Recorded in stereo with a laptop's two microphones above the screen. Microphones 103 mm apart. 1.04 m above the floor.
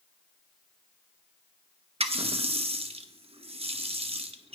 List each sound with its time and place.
2.0 s a running tap: 70° right (ahead or behind), 0.8 m